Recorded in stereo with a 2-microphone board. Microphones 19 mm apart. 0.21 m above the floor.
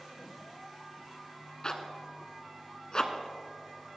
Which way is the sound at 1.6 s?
40° left (ahead or behind).